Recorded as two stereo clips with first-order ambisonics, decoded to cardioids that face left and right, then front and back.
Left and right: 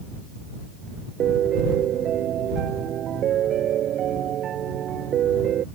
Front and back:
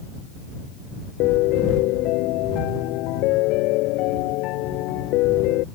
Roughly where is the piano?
Ahead right.